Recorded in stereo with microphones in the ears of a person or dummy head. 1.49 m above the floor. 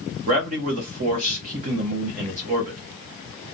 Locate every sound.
0.3 s a man speaking: 45° right (ahead or behind), 0.8 m